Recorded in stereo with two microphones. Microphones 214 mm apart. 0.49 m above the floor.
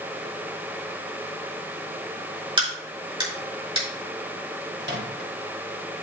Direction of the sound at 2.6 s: 25° right (ahead or behind).